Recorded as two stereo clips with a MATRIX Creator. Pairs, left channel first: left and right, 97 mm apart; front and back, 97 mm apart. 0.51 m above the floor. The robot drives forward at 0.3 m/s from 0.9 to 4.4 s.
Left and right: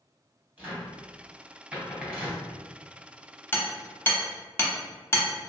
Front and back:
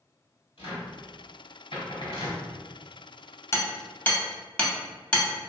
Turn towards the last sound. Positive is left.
turn(degrees=65)